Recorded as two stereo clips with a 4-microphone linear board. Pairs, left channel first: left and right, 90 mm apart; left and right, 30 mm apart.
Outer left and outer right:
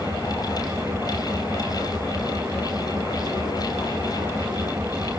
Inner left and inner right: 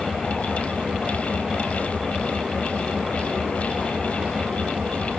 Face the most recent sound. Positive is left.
turn(degrees=-25)  # may be behind; listen again after turning